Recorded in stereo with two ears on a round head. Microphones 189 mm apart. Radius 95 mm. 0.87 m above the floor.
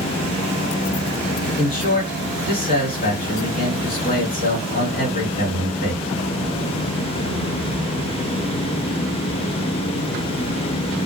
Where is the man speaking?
45° left (ahead or behind), 2 m.